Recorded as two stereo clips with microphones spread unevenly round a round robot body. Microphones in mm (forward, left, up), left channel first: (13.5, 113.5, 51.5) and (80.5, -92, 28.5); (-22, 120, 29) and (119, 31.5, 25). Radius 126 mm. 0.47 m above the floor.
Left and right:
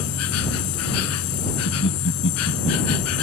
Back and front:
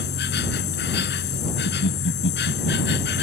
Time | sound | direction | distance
0.0 | an insect | 135° left | ?
1.7 | laughter | 150° left | ?